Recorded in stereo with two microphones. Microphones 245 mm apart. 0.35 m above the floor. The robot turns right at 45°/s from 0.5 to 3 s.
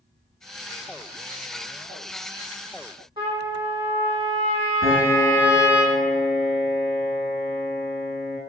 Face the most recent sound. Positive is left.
turn(degrees=-65)  # may be behind; listen again after turning